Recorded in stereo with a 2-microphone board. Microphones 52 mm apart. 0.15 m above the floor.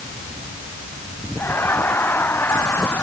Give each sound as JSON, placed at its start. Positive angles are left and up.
{"t": 1.4, "sound": "laughter", "side_deg": 45}